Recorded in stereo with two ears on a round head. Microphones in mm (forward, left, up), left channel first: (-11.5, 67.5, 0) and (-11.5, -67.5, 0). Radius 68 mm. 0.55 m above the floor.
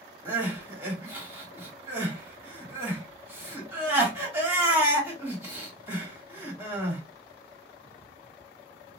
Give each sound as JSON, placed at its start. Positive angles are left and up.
{"t": 0.2, "sound": "crying", "side_deg": -15, "distance_m": 1.5}